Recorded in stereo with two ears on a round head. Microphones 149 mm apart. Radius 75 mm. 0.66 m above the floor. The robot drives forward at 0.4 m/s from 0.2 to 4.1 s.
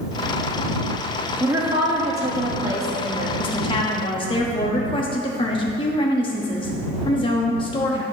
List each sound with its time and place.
1.4 s a woman speaking: 15° right (ahead or behind), 1.2 m; by 3.3 s 20° right (ahead or behind), 1.1 m
3.4 s a woman speaking: 30° left (ahead or behind), 1.0 m